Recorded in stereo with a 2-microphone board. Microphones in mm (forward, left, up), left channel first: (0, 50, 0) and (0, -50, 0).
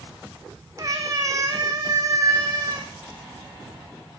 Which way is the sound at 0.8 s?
35° right (ahead or behind).